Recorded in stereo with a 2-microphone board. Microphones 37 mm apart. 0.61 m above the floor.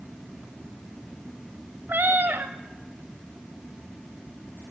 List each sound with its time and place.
1.9 s a cat meowing: 75° right (ahead or behind), 1.4 m